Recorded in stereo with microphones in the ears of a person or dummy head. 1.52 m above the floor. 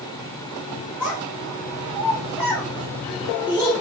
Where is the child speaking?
5° right (ahead or behind), 0.6 m.